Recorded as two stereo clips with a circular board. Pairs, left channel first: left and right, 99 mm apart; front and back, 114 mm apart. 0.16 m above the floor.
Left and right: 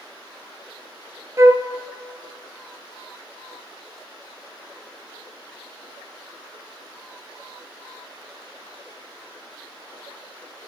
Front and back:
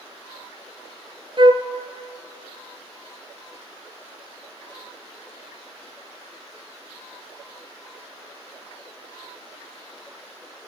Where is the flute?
145° right, 0.6 m.